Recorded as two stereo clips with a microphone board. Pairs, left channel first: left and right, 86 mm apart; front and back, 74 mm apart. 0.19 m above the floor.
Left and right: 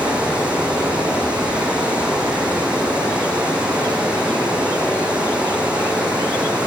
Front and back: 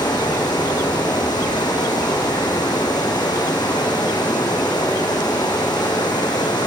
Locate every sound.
0.0 s running water: 15° right, 6 m